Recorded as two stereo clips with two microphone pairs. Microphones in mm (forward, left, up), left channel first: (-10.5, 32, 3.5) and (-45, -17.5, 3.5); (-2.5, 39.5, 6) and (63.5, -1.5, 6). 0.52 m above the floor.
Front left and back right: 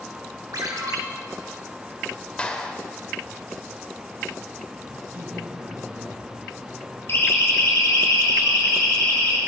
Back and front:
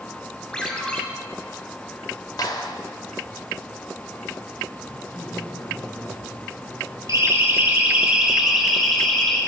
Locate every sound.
0.5 s a ringtone: 135° right, 2.5 m
2.4 s a clap: 125° left, 1.7 m
4.9 s a man speaking: 155° right, 5.5 m
7.1 s a siren: 10° left, 2.5 m; by 9.4 s 65° left, 4 m